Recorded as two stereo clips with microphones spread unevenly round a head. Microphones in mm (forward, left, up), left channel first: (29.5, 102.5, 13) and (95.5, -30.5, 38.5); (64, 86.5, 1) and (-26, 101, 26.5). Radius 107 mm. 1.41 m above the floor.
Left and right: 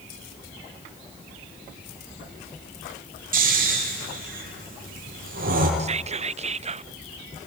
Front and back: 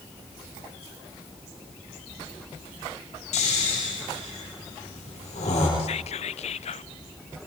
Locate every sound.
3.3 s snoring: 35° right, 9 m
5.8 s whispering: 10° right, 0.6 m